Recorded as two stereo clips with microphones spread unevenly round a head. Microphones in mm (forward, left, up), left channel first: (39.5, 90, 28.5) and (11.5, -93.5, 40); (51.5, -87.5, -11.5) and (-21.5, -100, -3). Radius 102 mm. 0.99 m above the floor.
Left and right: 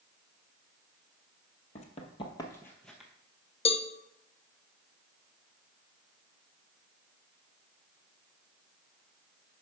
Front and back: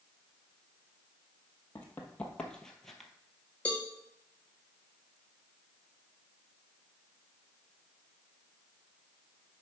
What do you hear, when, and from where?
1.8 s running footsteps: 70° left, 1.1 m; by 3.1 s 135° right, 0.9 m
3.6 s a cowbell: 65° left, 0.5 m